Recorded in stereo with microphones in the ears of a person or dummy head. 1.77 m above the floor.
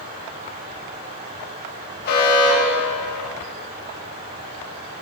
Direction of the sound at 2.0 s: 60° left (ahead or behind).